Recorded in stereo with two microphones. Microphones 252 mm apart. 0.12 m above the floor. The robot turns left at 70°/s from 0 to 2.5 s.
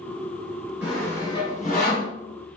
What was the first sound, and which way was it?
Sawing, 5° right (ahead or behind).